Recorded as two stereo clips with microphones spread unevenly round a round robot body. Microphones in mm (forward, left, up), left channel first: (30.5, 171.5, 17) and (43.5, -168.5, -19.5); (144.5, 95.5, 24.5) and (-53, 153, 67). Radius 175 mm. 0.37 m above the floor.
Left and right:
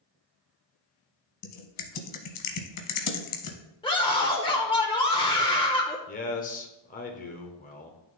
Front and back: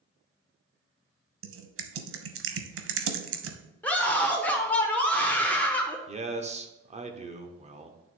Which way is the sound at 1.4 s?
140° left.